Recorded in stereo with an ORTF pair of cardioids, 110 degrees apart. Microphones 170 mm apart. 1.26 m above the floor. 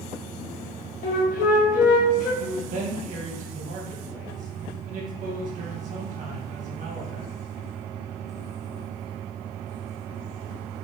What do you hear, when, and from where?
1.0 s a flute: 55° left, 1.1 m
2.4 s a man speaking: 50° right, 1.5 m